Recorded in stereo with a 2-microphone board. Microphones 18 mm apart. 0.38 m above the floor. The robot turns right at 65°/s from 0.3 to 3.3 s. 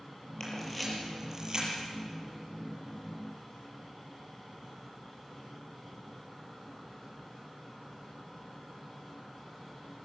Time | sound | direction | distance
0.4 | a camera shutter | 30° left (ahead or behind) | 7.5 m